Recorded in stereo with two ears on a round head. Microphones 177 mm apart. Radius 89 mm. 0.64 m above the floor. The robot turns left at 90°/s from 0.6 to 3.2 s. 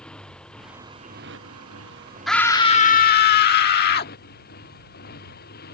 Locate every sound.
0.0 s a motorcycle: 5° left; by 5.7 s 130° left
2.3 s a scream: straight behind; by 4.1 s 95° left